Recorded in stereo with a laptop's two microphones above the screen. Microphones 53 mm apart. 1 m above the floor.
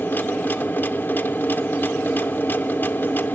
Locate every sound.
0.0 s a machine running: 40° left (ahead or behind), 0.7 m